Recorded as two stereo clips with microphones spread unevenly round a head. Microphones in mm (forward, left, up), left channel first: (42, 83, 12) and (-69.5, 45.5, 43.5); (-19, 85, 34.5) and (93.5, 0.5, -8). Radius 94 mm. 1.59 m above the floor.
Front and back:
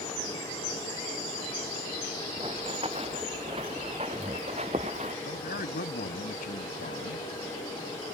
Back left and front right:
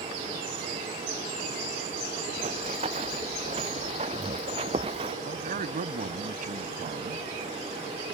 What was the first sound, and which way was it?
Running footsteps, 100° right.